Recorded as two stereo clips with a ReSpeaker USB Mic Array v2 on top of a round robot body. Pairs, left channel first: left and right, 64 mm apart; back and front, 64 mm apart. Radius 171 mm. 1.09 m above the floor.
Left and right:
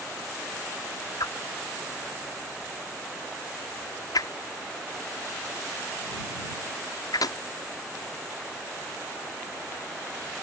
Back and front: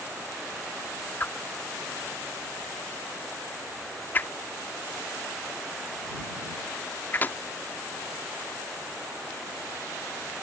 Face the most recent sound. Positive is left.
turn(degrees=115)